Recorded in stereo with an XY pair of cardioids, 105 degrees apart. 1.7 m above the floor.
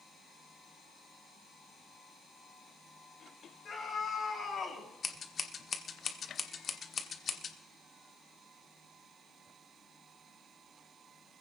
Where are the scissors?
45° left, 1.3 m.